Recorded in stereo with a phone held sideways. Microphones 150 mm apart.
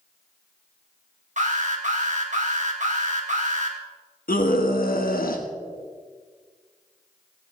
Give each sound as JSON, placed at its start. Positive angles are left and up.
{"t": 1.4, "sound": "an alarm", "side_deg": -55, "distance_m": 2.5}
{"t": 4.3, "sound": "a scream", "side_deg": 75, "distance_m": 1.1}